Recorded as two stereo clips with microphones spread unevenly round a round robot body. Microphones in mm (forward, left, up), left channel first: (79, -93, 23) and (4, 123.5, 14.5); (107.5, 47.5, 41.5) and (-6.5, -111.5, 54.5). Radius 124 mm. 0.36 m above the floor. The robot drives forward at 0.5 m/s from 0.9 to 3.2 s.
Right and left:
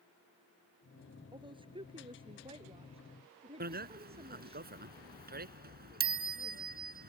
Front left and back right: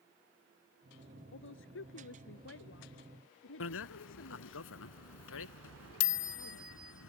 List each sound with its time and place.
1.3 s a woman speaking: 40° left; by 4.6 s 45° left
3.6 s a bicycle bell: 60° left